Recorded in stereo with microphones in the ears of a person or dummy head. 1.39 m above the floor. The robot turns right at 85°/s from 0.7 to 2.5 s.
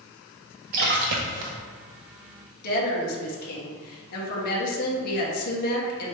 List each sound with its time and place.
0.7 s a splash: 125° right, 0.6 m; by 1.5 s 60° right, 0.6 m
2.6 s a woman speaking: 55° left (ahead or behind), 1.4 m